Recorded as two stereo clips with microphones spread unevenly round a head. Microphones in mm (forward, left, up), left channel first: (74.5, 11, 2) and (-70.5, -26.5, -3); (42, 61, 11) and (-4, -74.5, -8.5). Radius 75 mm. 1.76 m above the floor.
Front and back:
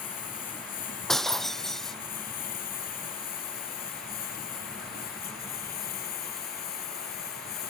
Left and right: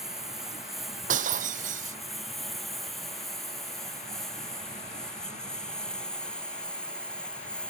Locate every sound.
0.0 s a lawn mower: 20° right; by 7.7 s 10° right
1.1 s breaking glass: 75° right